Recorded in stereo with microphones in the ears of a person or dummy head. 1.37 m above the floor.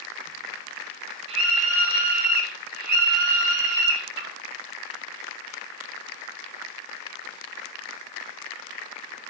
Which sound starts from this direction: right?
A scream, at 1.3 s.